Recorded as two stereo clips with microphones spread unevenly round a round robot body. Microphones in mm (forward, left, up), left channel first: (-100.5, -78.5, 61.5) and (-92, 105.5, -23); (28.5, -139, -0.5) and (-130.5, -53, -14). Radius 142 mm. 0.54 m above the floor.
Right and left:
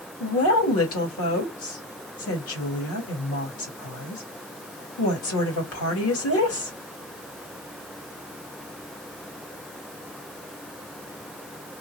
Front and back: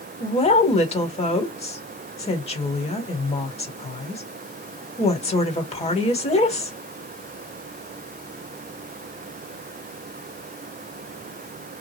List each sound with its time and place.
0.2 s a woman speaking: 80° right, 1.7 m